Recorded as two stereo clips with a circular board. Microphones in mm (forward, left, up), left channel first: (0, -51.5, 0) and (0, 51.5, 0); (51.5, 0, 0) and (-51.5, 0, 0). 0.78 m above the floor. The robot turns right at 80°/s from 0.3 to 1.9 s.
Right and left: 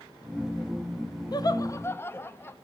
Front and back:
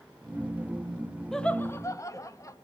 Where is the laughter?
85° right, 0.7 m; by 2.5 s 35° right, 0.7 m.